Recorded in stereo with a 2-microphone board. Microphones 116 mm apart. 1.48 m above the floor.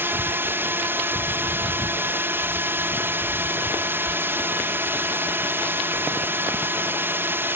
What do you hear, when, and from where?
0.0 s a drone: 20° right (ahead or behind)